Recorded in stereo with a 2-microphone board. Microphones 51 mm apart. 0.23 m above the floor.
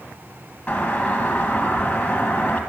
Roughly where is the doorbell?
Left.